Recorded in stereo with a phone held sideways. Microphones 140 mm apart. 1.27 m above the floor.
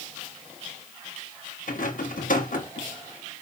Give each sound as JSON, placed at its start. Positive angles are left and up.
{"t": 1.7, "sound": "a rattle", "side_deg": 75, "distance_m": 1.2}